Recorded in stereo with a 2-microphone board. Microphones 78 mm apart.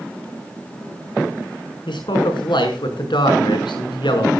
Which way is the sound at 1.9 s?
85° left.